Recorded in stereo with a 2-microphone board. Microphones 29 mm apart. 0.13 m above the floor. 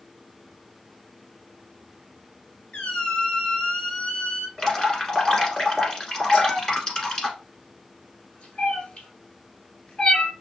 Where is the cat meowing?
35° left (ahead or behind), 1.1 m.